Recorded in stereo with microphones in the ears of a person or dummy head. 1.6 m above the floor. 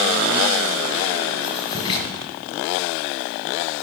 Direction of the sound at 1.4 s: 30° left (ahead or behind).